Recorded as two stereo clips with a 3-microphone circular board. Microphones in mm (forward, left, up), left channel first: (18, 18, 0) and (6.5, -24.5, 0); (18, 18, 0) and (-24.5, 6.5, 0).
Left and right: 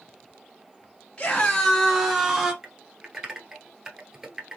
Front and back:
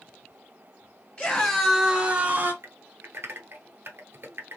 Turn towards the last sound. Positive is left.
turn(degrees=180)